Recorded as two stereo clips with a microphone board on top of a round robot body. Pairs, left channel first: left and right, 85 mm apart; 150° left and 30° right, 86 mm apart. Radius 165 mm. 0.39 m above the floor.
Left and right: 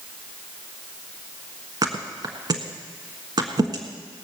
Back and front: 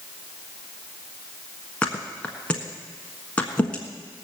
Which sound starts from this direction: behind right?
A thud, at 1.8 s.